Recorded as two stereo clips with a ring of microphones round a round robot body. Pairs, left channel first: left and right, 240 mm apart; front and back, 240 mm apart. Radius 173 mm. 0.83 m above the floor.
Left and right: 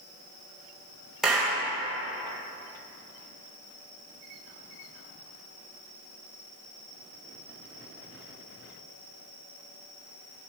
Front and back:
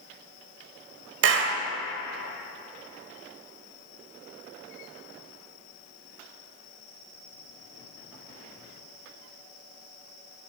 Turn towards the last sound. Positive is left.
turn(degrees=180)